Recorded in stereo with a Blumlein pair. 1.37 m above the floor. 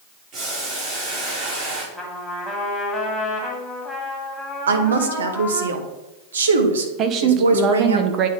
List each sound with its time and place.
0.3 s boiling: 35° right, 3.5 m
1.9 s a trumpet: 5° left, 1.9 m
4.7 s a woman speaking: 65° right, 1.0 m
7.0 s a woman speaking: 30° right, 0.9 m